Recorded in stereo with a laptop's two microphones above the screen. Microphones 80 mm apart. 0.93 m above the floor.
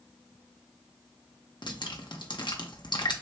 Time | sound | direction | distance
1.6 | dripping | 65° left (ahead or behind) | 0.6 m